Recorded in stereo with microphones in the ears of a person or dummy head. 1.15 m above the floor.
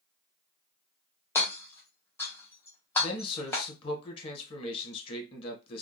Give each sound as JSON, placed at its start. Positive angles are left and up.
{"t": 1.4, "sound": "hammering", "side_deg": 20, "distance_m": 0.8}
{"t": 3.0, "sound": "a man speaking", "side_deg": 25, "distance_m": 0.9}